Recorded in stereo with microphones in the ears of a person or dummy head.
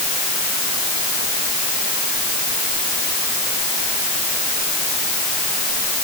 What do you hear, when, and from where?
Only background noise.